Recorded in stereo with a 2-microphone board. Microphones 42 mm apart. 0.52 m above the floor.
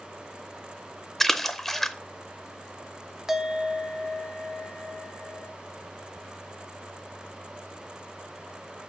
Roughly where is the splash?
Centre.